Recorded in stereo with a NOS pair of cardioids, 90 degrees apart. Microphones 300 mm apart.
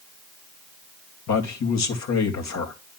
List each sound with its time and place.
1.3 s a man speaking: 65° left, 2.5 m